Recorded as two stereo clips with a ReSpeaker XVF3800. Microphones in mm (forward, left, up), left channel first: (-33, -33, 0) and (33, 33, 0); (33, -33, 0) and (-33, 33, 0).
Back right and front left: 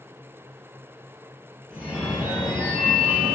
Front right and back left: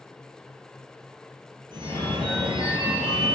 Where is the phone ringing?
125° left, 1.5 m.